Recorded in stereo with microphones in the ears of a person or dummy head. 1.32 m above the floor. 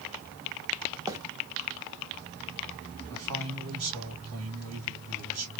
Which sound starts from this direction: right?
A man speaking, at 3.1 s.